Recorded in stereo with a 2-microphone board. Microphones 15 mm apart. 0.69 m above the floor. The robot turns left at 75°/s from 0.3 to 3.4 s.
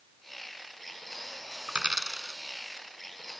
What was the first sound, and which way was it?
A dropped coin, 80° right.